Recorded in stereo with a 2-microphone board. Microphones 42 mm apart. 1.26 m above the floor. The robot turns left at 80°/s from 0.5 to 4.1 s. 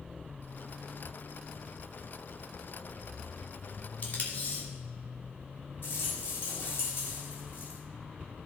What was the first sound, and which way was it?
Tape being pulled, 35° left (ahead or behind).